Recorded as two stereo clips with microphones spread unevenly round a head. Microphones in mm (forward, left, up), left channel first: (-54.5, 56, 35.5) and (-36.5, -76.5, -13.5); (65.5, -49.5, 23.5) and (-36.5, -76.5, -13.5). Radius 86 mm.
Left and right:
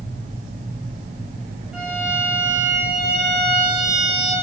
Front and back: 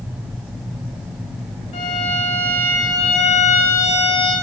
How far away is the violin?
About 4 m.